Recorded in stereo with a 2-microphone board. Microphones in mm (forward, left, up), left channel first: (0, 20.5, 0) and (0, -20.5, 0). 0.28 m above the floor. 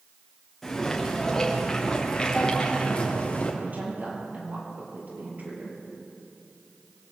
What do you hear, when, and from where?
0.6 s footsteps: 10° left (ahead or behind), 6 m; by 3.5 s 30° left (ahead or behind), 4.5 m
3.6 s a woman speaking: 45° right (ahead or behind), 6.5 m